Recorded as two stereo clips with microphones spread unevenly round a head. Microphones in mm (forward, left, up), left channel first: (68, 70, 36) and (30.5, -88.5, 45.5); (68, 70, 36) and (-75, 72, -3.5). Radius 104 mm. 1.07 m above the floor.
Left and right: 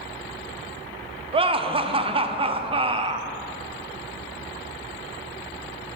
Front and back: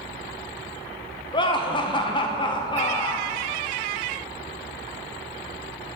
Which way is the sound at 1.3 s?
65° right.